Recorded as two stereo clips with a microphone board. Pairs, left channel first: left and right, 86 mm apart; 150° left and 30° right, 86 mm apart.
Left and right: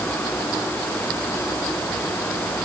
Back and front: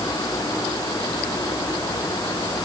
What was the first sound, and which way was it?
Only background noise.